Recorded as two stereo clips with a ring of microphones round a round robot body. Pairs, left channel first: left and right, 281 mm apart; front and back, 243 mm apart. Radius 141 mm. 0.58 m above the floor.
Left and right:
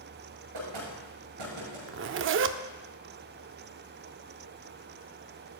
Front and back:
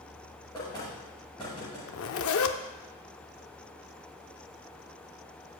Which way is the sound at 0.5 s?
80° right.